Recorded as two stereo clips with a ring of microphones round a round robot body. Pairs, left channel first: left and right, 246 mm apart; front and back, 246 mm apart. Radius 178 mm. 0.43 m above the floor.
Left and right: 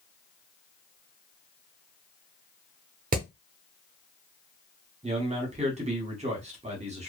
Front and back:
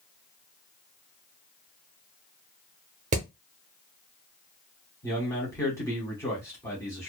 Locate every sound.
3.1 s hammering: 130° right, 0.6 m
5.0 s a man speaking: 65° right, 1.0 m